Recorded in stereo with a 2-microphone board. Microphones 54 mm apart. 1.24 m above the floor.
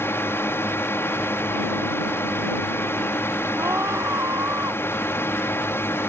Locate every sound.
0.0 s a drone: 50° left (ahead or behind)
3.6 s a scream: 65° right (ahead or behind)